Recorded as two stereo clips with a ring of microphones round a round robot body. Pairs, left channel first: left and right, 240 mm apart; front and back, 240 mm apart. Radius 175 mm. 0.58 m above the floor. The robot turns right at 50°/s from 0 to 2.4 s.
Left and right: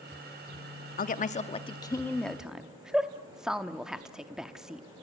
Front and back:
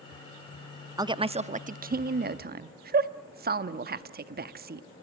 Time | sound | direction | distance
1.0 | a woman speaking | 115° left | 0.9 m